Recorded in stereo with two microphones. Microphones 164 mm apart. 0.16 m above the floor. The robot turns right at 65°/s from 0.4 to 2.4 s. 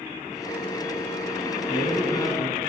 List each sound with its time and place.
1.7 s a man speaking: 95° left, 1.1 m; by 2.6 s 140° left, 1.1 m